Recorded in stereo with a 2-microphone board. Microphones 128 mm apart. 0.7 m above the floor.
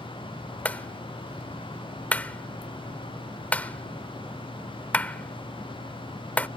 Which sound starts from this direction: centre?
A clap, at 0.7 s.